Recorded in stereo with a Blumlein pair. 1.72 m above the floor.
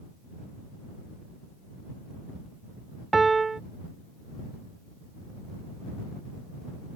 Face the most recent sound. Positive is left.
turn(degrees=-10)